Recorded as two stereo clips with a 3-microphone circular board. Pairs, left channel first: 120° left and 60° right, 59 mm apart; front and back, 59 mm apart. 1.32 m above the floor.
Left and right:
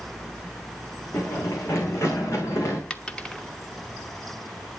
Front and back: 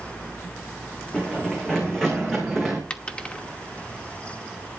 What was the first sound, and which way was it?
Running footsteps, 75° left.